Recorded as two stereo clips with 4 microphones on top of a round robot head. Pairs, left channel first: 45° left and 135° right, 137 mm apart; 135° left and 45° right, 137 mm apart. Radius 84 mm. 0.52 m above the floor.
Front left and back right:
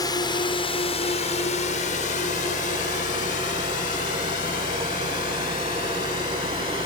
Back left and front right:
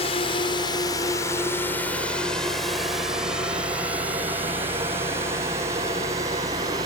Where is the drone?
100° left; by 6.9 s 20° left.